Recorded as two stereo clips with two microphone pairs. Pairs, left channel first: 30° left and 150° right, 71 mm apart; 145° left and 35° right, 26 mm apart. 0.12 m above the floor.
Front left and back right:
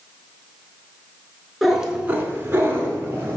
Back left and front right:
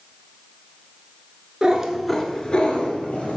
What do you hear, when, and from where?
1.6 s a cat meowing: 65° right, 0.7 m; by 3.4 s 155° left, 1.3 m